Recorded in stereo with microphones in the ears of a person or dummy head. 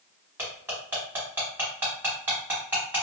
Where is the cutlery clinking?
10° right (ahead or behind), 1.5 m.